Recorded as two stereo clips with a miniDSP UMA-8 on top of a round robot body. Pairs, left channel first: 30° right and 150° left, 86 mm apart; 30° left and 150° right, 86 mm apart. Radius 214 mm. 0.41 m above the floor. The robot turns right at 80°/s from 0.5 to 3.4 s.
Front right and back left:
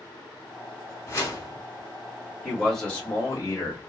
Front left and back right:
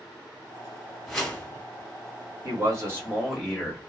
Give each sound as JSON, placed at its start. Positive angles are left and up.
{"t": 1.1, "sound": "a whoosh", "azimuth_deg": -55, "distance_m": 1.6}
{"t": 2.4, "sound": "a man speaking", "azimuth_deg": -135, "distance_m": 1.7}